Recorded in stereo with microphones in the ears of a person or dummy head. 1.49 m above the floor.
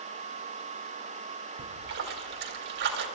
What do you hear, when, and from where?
1.6 s a splash: 60° right (ahead or behind), 3 m